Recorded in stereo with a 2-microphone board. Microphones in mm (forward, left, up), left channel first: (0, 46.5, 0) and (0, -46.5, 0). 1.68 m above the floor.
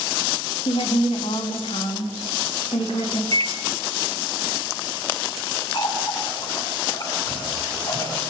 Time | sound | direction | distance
0.7 | a woman speaking | 85° left | 3.5 m
3.3 | a microwave | 70° right (ahead or behind) | 1.4 m
5.7 | a running tap | 50° left (ahead or behind) | 8.5 m